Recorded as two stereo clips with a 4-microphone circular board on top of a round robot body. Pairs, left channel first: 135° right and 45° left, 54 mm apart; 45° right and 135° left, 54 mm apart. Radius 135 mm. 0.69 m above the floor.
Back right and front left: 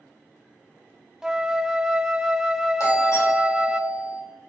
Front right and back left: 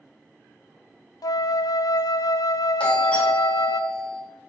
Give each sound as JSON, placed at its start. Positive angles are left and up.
{"t": 1.2, "sound": "a flute", "azimuth_deg": -35, "distance_m": 0.6}
{"t": 2.8, "sound": "a doorbell", "azimuth_deg": -115, "distance_m": 4.0}